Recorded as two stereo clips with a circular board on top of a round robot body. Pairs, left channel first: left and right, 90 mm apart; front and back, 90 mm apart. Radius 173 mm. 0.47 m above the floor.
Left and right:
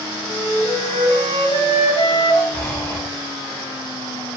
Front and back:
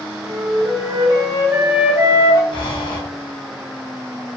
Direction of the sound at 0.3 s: 120° left.